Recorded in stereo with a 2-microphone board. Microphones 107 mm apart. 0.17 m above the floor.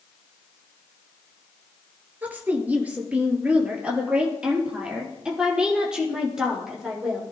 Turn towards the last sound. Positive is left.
turn(degrees=-5)  # may be behind; listen again after turning